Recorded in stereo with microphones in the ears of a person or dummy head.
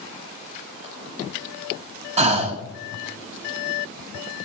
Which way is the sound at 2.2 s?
35° right (ahead or behind).